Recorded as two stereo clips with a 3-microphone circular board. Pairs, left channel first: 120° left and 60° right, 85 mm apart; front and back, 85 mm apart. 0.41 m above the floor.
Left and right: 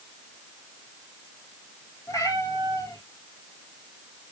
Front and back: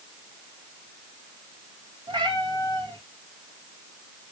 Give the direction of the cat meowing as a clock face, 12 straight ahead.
6 o'clock.